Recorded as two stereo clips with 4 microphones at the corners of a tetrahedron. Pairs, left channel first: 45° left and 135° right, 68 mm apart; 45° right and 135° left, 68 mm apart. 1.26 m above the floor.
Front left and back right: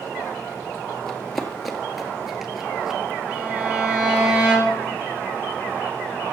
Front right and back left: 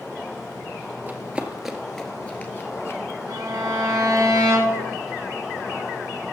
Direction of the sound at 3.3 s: 160° left.